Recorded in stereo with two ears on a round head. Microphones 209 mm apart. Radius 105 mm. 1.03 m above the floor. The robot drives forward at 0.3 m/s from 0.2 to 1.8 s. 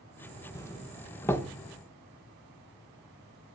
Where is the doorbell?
15° left (ahead or behind), 1.0 m; by 1.5 s 10° left (ahead or behind), 1.2 m.